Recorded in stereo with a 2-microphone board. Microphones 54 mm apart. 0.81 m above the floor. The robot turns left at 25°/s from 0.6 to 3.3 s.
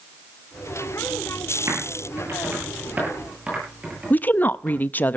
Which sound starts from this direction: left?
A woman speaking, at 4.1 s.